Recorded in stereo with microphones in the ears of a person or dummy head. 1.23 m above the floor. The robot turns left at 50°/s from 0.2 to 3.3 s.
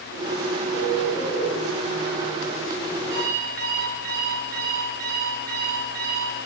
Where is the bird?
45° left, 3 m; by 1.5 s 5° left, 3 m.